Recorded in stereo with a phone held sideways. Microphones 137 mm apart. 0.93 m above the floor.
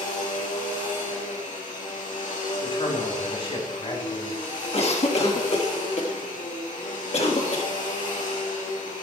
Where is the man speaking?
45° left (ahead or behind), 2.5 m.